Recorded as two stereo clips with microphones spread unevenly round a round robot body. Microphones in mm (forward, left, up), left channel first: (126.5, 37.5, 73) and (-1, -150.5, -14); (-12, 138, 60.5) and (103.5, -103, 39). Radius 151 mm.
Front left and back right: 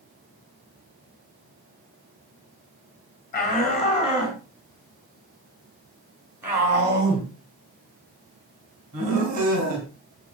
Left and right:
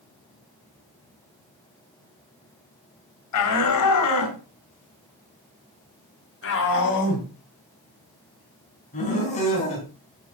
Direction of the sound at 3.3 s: 125° left.